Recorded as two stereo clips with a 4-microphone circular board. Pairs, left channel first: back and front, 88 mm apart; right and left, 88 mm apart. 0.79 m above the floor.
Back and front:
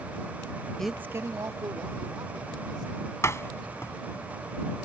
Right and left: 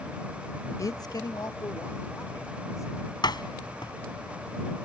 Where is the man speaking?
105° right; by 3.1 s 40° right.